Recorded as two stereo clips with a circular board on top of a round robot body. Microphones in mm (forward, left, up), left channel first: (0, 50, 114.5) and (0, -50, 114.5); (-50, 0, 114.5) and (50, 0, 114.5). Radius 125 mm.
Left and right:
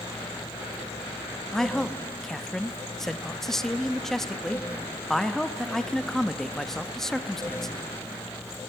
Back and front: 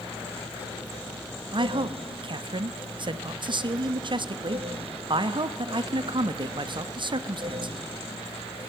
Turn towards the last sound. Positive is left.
turn(degrees=5)